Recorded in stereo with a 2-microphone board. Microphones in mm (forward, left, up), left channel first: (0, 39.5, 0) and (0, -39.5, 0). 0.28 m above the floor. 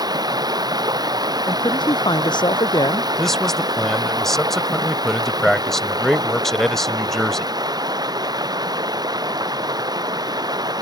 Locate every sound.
0.0 s running water: 60° right (ahead or behind)
1.5 s a man speaking: 70° left (ahead or behind)
3.2 s a man speaking: 5° left (ahead or behind)